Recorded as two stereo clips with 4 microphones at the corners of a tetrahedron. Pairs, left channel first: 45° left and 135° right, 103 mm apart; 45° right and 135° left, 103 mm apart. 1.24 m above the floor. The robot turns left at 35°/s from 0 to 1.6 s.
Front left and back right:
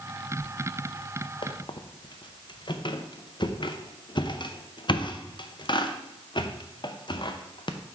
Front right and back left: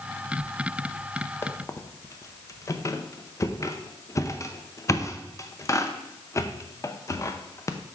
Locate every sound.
1.4 s a squeak: 20° left, 0.6 m; by 7.8 s 10° left, 0.6 m